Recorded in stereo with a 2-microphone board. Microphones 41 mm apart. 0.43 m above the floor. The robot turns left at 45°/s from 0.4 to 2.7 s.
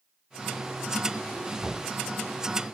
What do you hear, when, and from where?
1.6 s knocking: 30° right (ahead or behind), 3.5 m; by 1.8 s 20° right (ahead or behind), 3.5 m